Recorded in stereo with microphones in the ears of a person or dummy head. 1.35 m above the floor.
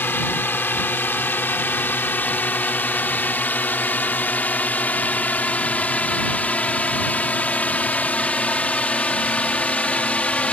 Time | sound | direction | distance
0.0 | a drone | 10° left (ahead or behind) | ?